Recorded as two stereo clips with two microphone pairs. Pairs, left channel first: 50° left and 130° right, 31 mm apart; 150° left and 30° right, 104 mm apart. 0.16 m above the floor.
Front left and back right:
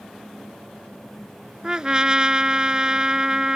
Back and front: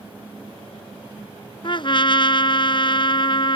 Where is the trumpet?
170° left.